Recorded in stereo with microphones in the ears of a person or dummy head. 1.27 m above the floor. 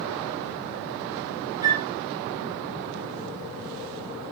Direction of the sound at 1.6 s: 20° right (ahead or behind).